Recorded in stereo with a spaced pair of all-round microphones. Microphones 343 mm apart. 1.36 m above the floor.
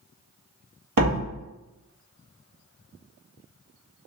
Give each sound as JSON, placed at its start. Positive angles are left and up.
{"t": 1.0, "sound": "a door slam", "side_deg": -70, "distance_m": 1.5}